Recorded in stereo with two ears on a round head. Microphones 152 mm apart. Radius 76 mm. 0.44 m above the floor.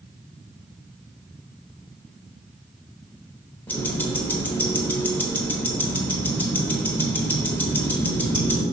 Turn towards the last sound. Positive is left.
turn(degrees=10)  # may be behind; listen again after turning